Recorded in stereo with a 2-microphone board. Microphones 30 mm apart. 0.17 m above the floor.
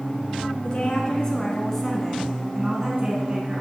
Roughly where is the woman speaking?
Left.